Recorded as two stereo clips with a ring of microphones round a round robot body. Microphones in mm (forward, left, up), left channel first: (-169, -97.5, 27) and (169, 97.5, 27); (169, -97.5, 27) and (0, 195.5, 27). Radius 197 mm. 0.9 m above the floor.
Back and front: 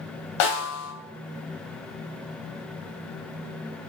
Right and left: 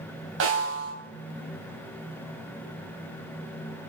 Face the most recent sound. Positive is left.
turn(degrees=180)